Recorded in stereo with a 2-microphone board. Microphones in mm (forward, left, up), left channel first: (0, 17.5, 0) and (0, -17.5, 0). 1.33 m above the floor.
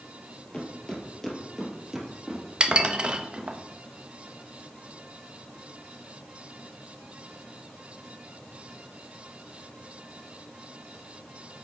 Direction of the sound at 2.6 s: 30° right (ahead or behind).